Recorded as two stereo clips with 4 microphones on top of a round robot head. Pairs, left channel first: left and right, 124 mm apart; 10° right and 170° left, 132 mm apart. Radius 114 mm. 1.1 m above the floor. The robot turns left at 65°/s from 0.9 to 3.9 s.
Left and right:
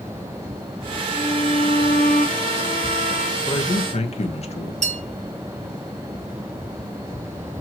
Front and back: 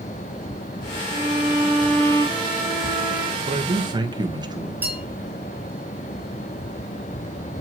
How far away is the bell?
About 1.7 m.